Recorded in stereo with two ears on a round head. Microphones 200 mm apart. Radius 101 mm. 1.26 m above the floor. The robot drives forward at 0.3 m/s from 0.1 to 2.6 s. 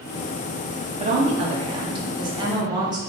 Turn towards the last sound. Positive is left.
turn(degrees=-20)  # may be behind; listen again after turning